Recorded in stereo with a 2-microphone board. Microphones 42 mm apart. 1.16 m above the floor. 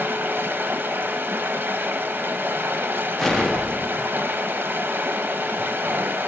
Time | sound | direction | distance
0.0 | running water | 55° right (ahead or behind) | 0.8 m
3.2 | an explosion | 10° left (ahead or behind) | 0.8 m